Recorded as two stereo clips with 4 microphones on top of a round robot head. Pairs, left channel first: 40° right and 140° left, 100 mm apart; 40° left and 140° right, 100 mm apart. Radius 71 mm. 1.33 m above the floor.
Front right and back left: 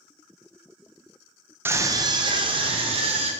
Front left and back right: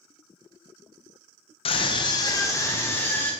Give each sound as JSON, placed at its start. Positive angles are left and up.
{"t": 1.6, "sound": "a scream", "azimuth_deg": 70, "distance_m": 1.4}